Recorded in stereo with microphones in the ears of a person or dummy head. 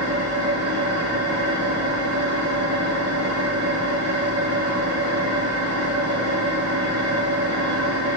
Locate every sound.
0.0 s an engine running: 85° right, 1.1 m